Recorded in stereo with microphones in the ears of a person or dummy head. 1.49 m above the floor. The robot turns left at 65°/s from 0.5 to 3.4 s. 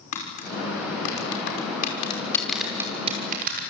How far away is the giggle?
I don't hear a giggle.